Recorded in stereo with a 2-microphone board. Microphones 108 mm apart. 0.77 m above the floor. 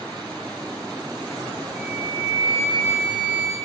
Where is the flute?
10° right (ahead or behind), 3 m.